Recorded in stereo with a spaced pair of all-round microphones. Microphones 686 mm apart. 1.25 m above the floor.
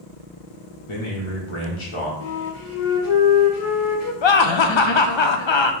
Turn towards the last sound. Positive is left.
turn(degrees=45)  # may be behind; listen again after turning